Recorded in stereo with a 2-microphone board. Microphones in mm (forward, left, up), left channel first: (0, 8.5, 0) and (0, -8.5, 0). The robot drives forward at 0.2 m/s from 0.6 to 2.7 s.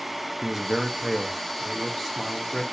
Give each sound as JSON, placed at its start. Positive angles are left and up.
{"t": 0.4, "sound": "a man speaking", "side_deg": -10, "distance_m": 0.6}